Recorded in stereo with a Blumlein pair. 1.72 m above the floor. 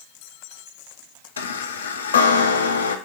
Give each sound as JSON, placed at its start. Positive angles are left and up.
{"t": 1.4, "sound": "a chime", "azimuth_deg": 70, "distance_m": 0.5}